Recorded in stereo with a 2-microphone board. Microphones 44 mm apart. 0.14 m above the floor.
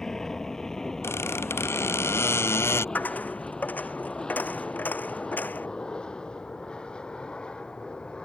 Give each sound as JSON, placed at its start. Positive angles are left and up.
{"t": 0.0, "sound": "an aircraft", "side_deg": 15}
{"t": 1.0, "sound": "a squeak", "side_deg": 80}
{"t": 3.0, "sound": "a dropped coin", "side_deg": 40}